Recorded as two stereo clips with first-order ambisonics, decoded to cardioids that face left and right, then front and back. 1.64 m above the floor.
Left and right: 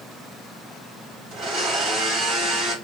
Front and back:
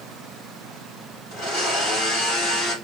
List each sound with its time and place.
1.3 s a blender: 50° right, 3.5 m